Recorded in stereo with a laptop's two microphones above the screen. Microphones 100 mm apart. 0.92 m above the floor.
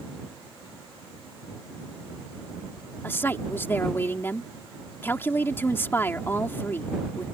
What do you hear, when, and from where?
3.0 s a woman speaking: 20° left (ahead or behind)